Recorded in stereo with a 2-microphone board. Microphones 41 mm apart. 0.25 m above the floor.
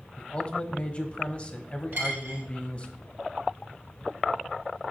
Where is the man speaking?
30° left (ahead or behind), 1.0 m.